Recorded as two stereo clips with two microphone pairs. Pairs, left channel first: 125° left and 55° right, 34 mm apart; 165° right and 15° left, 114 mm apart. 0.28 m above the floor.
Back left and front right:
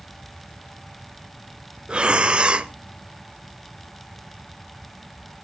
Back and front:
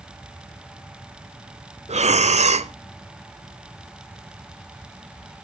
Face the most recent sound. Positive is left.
turn(degrees=0)